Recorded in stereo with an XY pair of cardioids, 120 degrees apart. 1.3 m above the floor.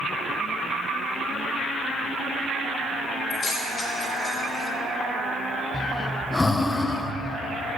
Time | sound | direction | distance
3.3 | keys jangling | 40° left | 2.5 m
5.7 | breathing | 15° left | 0.6 m